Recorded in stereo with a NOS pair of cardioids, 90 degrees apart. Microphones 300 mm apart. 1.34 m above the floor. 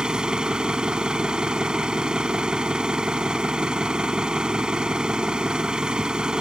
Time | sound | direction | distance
0.0 | an engine running | 5° right | ?